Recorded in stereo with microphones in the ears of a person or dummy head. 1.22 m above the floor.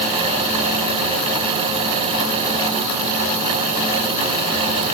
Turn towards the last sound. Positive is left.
No sound to turn to.